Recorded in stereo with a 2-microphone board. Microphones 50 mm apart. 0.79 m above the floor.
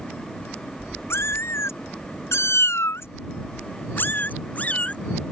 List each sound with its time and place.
1.1 s a cat meowing: 65° left (ahead or behind); by 5.0 s 30° left (ahead or behind)